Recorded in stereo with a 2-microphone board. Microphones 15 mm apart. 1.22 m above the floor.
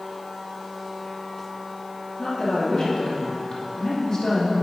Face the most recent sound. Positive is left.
turn(degrees=45)  # may be behind; listen again after turning